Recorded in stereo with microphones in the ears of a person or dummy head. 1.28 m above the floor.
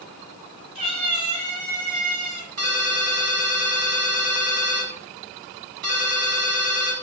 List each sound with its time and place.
0.8 s a cat meowing: 30° right (ahead or behind), 2 m; by 2.5 s 50° right (ahead or behind), 2.5 m
2.6 s a ringtone: 50° right (ahead or behind), 1.0 m